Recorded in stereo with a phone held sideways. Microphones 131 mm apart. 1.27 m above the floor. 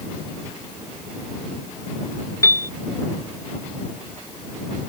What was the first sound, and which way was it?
A piano, 25° left (ahead or behind).